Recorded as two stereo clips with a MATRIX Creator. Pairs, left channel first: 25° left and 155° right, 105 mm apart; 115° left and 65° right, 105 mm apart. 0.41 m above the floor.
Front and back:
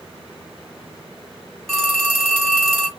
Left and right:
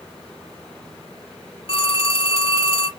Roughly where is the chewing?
No chewing in this recording.